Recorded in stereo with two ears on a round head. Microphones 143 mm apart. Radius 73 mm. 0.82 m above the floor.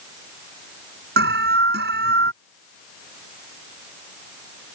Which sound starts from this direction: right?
An alarm, at 1.2 s.